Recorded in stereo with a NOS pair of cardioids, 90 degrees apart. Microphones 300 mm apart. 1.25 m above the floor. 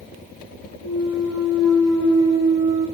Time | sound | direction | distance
0.8 | a clunk | 45° right | 5 m